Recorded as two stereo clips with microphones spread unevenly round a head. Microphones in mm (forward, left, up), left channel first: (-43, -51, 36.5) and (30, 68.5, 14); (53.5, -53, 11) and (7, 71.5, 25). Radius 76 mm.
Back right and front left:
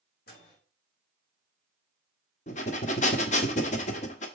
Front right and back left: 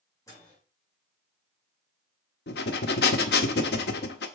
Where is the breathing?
80° right, 1.0 m.